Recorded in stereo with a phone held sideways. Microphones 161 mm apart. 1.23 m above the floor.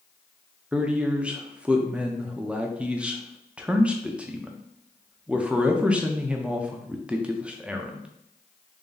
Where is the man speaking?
5° right (ahead or behind), 0.5 m.